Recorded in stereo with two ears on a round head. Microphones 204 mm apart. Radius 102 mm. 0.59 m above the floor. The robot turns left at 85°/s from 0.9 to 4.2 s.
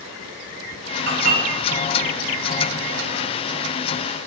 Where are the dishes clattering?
75° right (ahead or behind), 1.0 m; by 3.2 s 70° left (ahead or behind), 1.0 m.